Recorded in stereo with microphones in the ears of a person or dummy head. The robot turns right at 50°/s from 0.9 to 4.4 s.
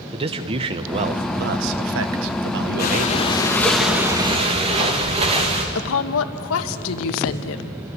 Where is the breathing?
130° left, 2.5 m; by 5.7 s 150° right, 2.5 m.